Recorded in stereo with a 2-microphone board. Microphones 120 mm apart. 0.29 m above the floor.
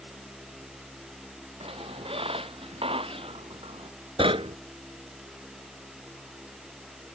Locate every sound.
1.6 s a squeak: 50° right (ahead or behind)
4.2 s knocking: 50° right (ahead or behind)